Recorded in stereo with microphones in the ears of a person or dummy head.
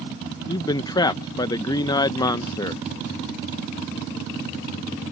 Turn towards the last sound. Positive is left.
turn(degrees=15)  # may be behind; listen again after turning